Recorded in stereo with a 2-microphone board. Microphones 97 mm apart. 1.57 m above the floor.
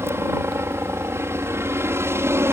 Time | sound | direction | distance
0.0 | a helicopter | 25° right (ahead or behind) | ?